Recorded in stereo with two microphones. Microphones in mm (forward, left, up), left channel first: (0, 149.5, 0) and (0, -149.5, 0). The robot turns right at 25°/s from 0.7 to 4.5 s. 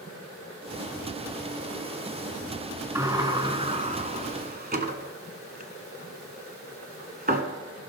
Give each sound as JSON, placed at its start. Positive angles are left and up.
{"t": 3.0, "sound": "a sliding door", "side_deg": -10, "distance_m": 1.0}